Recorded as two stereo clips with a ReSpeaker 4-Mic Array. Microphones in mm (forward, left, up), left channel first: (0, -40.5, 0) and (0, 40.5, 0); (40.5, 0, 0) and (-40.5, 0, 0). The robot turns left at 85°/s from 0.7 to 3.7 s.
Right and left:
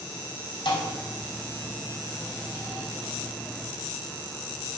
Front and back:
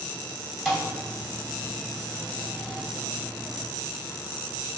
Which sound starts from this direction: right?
A thud, at 0.7 s.